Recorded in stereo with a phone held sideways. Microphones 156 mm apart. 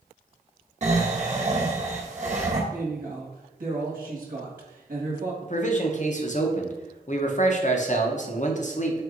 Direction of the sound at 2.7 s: 60° right (ahead or behind).